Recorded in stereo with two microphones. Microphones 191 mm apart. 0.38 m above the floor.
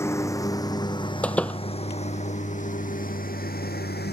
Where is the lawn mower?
15° left (ahead or behind); by 4.1 s 60° left (ahead or behind).